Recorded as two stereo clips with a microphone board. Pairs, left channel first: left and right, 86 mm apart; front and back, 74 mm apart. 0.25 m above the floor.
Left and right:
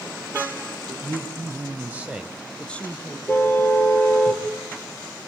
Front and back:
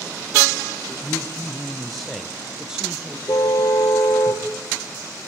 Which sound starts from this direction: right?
A man speaking, at 0.9 s.